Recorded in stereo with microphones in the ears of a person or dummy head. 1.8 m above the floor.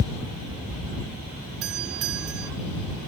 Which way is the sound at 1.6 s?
75° right (ahead or behind).